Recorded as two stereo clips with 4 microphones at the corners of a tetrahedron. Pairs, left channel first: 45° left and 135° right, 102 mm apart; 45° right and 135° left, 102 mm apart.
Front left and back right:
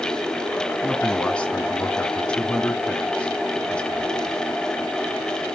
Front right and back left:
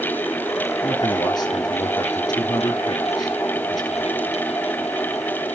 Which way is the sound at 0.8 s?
30° right.